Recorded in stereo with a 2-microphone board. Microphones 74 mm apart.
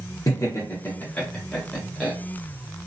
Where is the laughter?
45° left (ahead or behind), 0.9 m; by 2.1 s 5° right (ahead or behind), 1.1 m.